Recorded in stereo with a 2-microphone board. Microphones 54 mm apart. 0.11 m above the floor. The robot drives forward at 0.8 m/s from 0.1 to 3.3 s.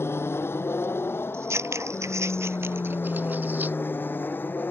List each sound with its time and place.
0.0 s an aircraft: 45° left (ahead or behind); by 4.7 s 35° left (ahead or behind)
1.3 s scissors: 50° right (ahead or behind); by 3.8 s 35° right (ahead or behind)